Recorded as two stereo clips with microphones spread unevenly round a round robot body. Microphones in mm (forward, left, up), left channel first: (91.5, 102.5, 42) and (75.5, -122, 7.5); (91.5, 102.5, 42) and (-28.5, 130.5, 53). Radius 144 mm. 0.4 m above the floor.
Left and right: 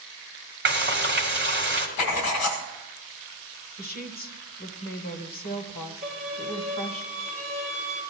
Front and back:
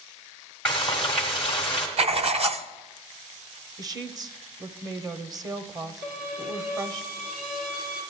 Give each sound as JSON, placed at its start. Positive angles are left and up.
{"t": 0.7, "sound": "frying", "azimuth_deg": -95, "distance_m": 1.5}
{"t": 2.0, "sound": "writing", "azimuth_deg": 125, "distance_m": 0.8}
{"t": 3.8, "sound": "a woman speaking", "azimuth_deg": 120, "distance_m": 1.0}
{"t": 6.0, "sound": "a violin", "azimuth_deg": 175, "distance_m": 3.0}